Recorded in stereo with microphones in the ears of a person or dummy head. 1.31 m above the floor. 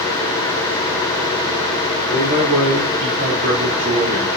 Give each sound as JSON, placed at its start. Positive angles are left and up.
{"t": 2.1, "sound": "a man speaking", "side_deg": -85, "distance_m": 1.5}